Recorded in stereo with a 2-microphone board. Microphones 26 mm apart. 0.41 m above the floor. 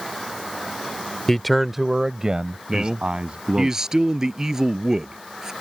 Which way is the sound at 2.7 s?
20° right (ahead or behind).